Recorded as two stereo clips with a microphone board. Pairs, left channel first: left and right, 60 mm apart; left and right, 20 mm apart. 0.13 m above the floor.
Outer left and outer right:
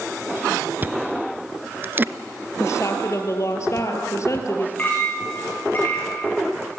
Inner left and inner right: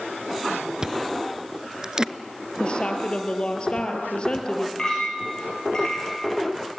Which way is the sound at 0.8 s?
30° right (ahead or behind).